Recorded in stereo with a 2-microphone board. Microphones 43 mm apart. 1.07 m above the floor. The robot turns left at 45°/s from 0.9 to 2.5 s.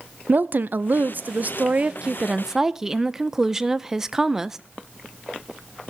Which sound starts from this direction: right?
A woman speaking, at 0.3 s.